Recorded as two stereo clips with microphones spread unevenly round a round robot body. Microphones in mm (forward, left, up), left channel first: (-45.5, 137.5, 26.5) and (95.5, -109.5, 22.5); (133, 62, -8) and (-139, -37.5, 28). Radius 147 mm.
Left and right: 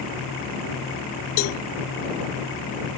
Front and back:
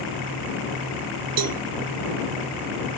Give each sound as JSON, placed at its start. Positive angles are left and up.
{"t": 1.4, "sound": "a cowbell", "azimuth_deg": 165}